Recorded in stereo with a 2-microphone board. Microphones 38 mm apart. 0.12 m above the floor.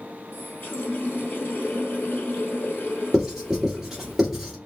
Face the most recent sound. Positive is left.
turn(degrees=-10)  # may be behind; listen again after turning